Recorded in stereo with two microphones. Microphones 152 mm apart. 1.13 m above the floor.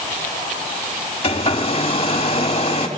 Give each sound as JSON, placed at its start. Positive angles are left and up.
{"t": 1.2, "sound": "a hair dryer", "side_deg": 40, "distance_m": 2.0}